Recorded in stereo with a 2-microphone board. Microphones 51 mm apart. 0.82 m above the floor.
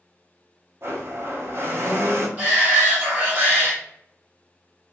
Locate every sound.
0.8 s a blender: 50° right (ahead or behind), 0.8 m
2.4 s a shout: 35° right (ahead or behind), 1.3 m